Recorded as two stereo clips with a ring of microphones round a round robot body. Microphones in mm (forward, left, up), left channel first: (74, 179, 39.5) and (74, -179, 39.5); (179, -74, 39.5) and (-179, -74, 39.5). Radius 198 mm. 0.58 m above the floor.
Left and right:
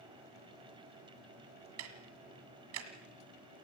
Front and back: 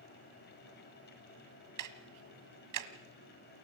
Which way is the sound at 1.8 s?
145° right.